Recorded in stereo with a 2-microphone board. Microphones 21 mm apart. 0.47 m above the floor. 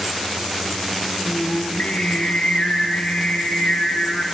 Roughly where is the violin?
No violin in this recording.